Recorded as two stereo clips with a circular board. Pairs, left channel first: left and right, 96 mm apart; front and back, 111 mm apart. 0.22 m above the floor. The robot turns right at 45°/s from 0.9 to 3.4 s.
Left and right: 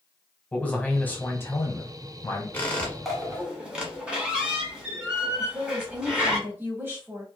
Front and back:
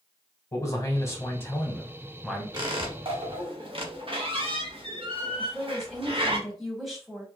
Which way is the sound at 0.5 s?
30° left.